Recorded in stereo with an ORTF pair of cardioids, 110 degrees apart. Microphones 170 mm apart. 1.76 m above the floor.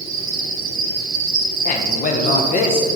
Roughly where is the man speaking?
Ahead left.